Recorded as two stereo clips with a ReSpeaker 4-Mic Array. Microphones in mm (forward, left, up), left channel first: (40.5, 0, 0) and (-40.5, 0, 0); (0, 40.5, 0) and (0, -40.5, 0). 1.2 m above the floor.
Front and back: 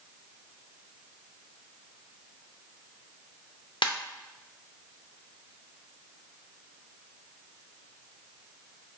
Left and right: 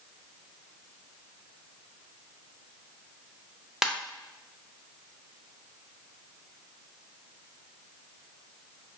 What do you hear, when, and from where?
3.8 s a ringtone: 10° right, 0.6 m